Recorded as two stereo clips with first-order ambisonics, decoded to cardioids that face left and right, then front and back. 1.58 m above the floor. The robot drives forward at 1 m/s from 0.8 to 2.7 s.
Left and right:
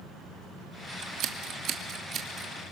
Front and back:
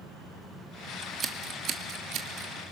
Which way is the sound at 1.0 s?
110° right.